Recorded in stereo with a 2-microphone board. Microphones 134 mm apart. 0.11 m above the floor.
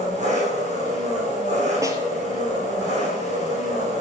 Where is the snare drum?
25° right (ahead or behind), 1.5 m.